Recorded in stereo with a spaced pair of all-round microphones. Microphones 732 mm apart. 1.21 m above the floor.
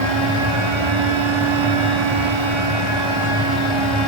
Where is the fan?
40° right (ahead or behind), 1.8 m.